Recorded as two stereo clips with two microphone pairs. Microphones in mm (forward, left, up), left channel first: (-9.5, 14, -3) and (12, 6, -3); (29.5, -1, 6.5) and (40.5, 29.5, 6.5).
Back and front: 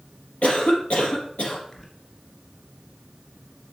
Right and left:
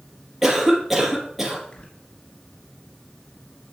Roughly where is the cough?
Behind left.